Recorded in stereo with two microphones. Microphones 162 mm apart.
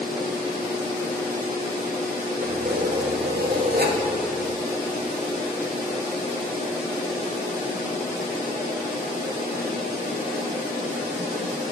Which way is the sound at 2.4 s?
85° right.